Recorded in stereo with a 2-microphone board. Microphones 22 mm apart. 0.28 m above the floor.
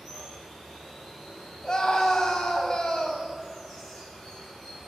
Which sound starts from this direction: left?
A scream, at 1.6 s.